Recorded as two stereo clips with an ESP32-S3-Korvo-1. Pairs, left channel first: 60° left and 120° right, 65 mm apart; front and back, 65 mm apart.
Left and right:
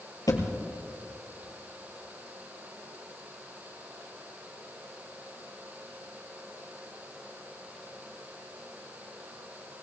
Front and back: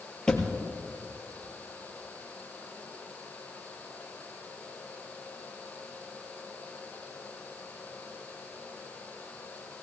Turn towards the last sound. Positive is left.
turn(degrees=75)